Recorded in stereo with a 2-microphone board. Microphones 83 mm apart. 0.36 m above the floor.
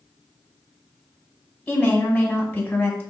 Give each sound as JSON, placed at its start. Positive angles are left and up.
{"t": 1.7, "sound": "a woman speaking", "side_deg": 15, "distance_m": 1.5}